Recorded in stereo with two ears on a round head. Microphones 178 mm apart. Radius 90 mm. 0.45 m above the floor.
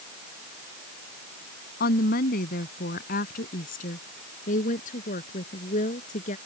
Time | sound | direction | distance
1.8 | a woman speaking | 50° left (ahead or behind) | ?